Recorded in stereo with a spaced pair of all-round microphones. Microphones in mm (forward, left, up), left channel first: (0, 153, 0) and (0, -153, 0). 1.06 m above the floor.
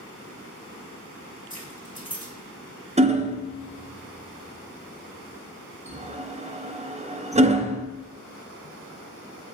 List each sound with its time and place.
1.5 s keys jangling: 25° left (ahead or behind), 1.9 m
3.0 s hammering: 20° right (ahead or behind), 0.6 m